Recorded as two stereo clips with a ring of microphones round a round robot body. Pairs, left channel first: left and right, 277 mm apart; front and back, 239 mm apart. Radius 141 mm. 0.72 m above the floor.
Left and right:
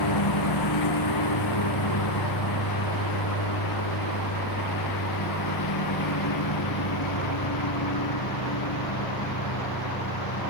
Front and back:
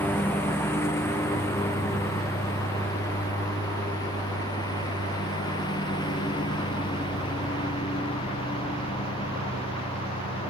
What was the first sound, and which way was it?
A lawn mower, 80° left.